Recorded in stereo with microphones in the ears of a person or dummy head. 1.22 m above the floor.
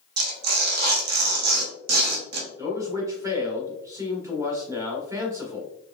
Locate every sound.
0.2 s tearing paper: 55° right (ahead or behind), 1.0 m
2.6 s a man speaking: 20° right (ahead or behind), 1.3 m